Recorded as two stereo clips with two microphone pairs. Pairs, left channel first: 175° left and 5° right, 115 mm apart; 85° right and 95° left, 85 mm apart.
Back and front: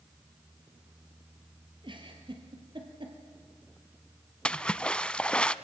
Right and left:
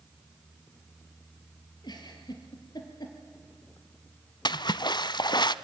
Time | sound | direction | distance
1.8 | a giggle | 50° right | 3.5 m
4.5 | a splash | 105° right | 0.6 m